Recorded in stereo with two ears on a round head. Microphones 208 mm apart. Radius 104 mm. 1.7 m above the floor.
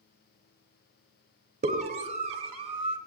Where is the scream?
30° right (ahead or behind), 3.5 m; by 3.0 s 25° right (ahead or behind), 2.5 m.